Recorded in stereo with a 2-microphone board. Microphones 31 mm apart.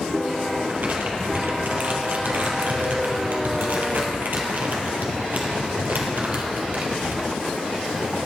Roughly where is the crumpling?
Right.